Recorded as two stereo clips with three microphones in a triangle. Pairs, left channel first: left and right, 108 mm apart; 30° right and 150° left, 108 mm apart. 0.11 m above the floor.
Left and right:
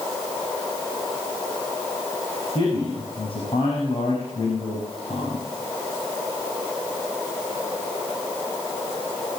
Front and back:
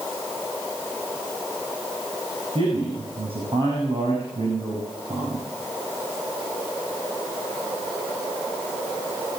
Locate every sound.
2.5 s a man speaking: 120° left, 5.5 m